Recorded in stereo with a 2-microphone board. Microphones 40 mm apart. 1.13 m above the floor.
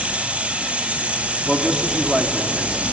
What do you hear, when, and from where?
0.0 s running water: 35° right (ahead or behind), 1.6 m
1.5 s a man speaking: 10° right (ahead or behind), 2.5 m